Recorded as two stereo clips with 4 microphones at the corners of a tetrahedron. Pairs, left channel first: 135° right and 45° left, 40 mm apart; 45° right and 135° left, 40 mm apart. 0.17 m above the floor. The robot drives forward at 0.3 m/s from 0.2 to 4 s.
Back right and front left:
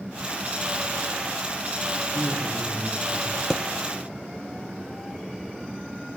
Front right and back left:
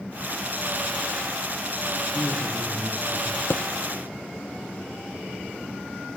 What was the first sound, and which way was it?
A man speaking, 75° right.